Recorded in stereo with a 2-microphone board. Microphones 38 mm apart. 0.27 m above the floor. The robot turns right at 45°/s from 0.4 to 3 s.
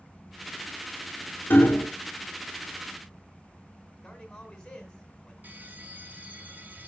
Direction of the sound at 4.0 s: 15° left (ahead or behind).